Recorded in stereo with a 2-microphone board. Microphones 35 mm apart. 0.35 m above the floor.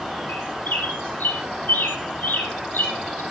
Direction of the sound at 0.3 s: 60° left (ahead or behind).